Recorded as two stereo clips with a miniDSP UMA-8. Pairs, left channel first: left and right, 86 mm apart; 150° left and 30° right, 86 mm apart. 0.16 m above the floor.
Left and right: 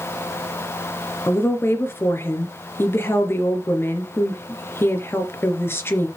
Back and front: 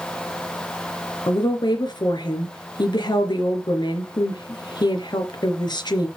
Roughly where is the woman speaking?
Behind left.